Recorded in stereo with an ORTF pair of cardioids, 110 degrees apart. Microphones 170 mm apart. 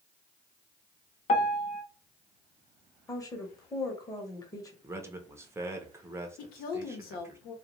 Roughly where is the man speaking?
Ahead.